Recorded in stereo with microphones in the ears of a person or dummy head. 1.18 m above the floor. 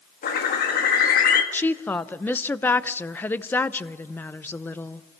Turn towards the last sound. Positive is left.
turn(degrees=10)  # may be behind; listen again after turning